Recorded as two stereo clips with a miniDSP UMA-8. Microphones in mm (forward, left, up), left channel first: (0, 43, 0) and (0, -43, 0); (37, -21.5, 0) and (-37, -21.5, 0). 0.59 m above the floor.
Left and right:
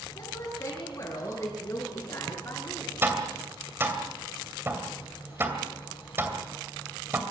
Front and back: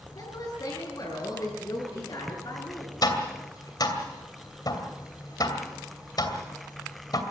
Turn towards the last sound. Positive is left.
turn(degrees=-25)